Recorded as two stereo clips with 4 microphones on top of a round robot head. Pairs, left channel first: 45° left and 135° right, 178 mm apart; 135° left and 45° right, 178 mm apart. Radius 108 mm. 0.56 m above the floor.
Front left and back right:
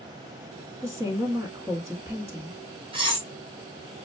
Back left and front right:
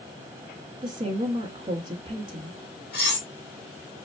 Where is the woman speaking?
75° right, 1.1 m.